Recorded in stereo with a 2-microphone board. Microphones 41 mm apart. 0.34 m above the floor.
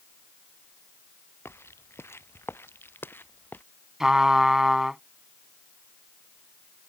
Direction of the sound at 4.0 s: 15° right (ahead or behind).